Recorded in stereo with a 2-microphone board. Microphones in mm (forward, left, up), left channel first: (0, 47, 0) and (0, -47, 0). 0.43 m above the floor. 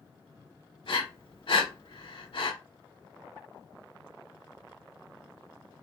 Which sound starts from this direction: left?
Breathing, at 0.8 s.